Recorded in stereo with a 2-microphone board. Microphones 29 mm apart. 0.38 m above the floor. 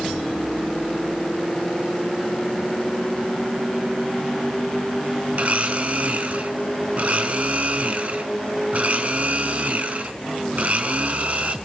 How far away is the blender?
About 3 m.